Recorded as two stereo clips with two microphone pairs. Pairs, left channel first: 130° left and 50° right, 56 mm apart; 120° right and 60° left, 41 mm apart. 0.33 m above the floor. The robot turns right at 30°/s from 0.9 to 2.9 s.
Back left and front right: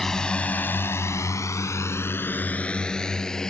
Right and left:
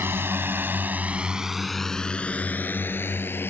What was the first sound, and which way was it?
A drone, 45° left.